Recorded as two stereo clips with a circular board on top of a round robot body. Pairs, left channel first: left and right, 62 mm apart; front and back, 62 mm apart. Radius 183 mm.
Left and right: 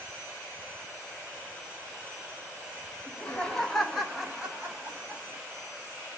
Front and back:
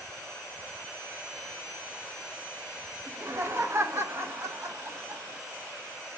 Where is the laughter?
150° left, 1.1 m; by 5.4 s 140° right, 1.5 m.